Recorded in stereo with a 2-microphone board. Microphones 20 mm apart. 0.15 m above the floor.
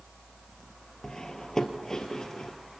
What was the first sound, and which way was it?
Cutlery clinking, 30° left (ahead or behind).